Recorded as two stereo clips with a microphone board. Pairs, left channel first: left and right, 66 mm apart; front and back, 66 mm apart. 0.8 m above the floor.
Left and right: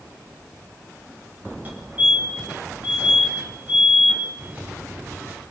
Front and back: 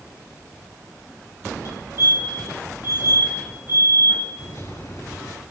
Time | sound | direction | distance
1.6 | a fire alarm | 25° right | 7.5 m
4.4 | a microwave | 25° right | 7 m